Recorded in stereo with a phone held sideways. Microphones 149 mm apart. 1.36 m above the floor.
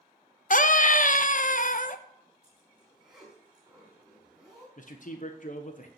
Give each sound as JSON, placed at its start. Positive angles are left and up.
{"t": 0.5, "sound": "a scream", "side_deg": 60, "distance_m": 0.9}
{"t": 2.4, "sound": "a zipper", "side_deg": -5, "distance_m": 4.0}
{"t": 4.8, "sound": "a man speaking", "side_deg": 55, "distance_m": 1.0}